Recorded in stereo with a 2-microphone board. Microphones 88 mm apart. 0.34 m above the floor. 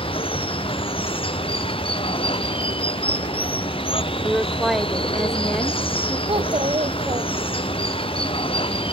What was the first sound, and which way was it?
Running water, 90° left.